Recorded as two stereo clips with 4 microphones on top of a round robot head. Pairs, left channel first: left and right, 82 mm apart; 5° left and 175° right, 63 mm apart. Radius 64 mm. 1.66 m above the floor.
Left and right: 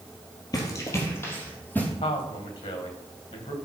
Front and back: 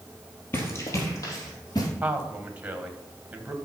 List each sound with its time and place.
0.5 s running footsteps: 50° left, 2.5 m; by 1.9 s 20° left, 4 m
2.0 s a man speaking: 115° left, 1.8 m